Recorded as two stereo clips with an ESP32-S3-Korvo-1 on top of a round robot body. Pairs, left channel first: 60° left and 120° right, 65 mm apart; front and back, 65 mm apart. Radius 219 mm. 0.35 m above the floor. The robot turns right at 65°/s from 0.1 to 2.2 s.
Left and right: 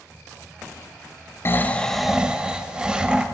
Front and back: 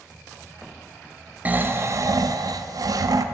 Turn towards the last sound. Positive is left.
turn(degrees=165)